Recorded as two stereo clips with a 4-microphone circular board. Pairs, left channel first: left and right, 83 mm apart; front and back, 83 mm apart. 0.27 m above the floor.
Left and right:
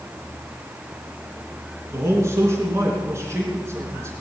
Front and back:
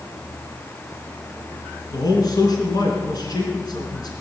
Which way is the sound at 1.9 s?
35° right.